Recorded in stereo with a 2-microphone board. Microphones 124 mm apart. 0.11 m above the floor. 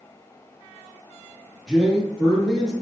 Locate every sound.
1.7 s a man speaking: 5° right (ahead or behind), 1.6 m